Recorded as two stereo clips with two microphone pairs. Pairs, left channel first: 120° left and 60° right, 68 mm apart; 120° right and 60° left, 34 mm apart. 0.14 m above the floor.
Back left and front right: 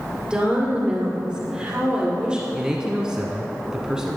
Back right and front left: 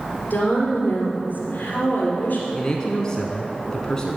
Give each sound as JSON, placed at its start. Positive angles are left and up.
{"t": 0.2, "sound": "a woman speaking", "azimuth_deg": -130, "distance_m": 2.5}
{"t": 2.5, "sound": "a man speaking", "azimuth_deg": -115, "distance_m": 1.0}